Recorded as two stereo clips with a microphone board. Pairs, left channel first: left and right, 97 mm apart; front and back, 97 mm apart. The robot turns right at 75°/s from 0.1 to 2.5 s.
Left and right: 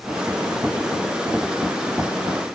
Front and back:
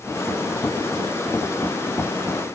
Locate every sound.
Only background noise.